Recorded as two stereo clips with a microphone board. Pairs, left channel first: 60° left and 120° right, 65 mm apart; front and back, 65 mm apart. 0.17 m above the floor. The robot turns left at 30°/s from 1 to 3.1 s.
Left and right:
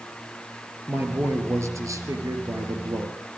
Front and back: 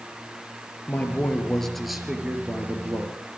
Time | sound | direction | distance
0.9 | a man speaking | 65° right | 3.5 m